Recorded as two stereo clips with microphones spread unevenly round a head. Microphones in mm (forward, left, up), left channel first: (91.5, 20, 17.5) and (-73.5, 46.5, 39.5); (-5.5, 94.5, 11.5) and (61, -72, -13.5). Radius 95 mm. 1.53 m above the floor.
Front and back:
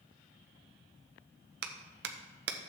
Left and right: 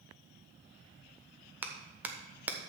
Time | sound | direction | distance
1.6 | a clap | 150° right | 0.8 m